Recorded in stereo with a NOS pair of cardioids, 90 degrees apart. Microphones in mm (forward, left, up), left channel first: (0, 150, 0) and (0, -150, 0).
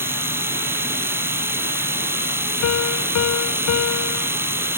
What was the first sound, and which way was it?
A machine running, 5° right.